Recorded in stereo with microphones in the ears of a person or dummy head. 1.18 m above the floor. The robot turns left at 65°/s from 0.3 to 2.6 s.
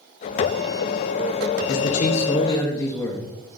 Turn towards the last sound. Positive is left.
turn(degrees=15)